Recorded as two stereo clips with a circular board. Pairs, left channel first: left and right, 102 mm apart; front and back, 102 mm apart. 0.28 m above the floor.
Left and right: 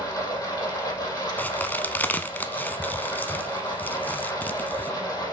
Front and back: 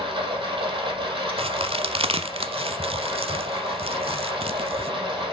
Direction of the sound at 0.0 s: 145° left.